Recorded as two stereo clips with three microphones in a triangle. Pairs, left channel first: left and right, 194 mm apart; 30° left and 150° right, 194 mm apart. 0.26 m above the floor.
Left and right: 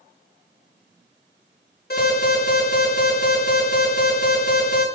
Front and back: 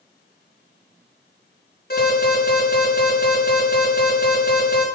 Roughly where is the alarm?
Ahead left.